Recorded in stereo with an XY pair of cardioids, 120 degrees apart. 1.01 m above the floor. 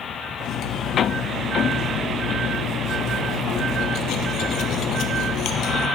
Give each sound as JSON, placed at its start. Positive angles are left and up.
{"t": 0.4, "sound": "cutlery clinking", "azimuth_deg": 70, "distance_m": 0.9}